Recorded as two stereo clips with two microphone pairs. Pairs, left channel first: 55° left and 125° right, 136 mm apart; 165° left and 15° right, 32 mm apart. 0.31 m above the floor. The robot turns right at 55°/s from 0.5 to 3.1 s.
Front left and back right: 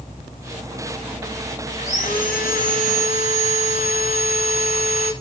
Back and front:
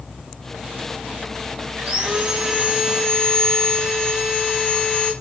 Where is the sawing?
25° left, 8.5 m; by 5.1 s 95° left, 8.5 m.